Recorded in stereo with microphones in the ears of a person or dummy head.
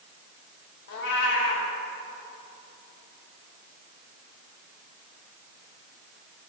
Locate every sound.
0.9 s a cat meowing: 55° left (ahead or behind), 1.1 m